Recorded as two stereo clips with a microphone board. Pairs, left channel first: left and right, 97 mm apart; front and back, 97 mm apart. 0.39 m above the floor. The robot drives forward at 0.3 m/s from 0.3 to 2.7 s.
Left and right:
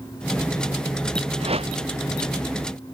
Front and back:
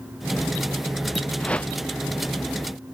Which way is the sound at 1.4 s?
80° right.